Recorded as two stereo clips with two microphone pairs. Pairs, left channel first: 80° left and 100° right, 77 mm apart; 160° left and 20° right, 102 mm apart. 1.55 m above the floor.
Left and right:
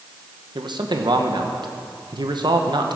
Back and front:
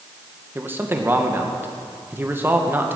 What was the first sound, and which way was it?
A man speaking, 90° right.